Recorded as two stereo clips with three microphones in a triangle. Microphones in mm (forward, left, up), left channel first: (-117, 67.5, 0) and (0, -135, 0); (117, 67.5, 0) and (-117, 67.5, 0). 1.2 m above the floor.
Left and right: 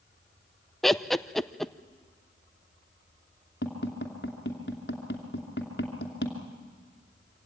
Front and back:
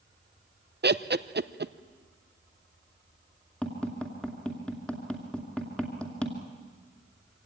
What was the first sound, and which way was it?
Laughter, 150° right.